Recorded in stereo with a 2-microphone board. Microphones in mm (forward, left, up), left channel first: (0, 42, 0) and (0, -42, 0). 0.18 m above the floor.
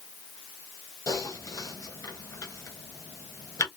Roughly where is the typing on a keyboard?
Left.